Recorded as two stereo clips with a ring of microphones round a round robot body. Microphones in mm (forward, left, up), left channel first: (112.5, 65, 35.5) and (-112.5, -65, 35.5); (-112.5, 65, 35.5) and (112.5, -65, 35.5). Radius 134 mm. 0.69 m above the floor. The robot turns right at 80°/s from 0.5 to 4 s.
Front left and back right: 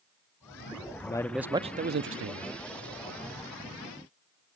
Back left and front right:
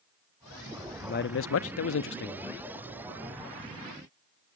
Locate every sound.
1.0 s a man speaking: 95° left, 0.8 m; by 2.5 s 145° right, 0.8 m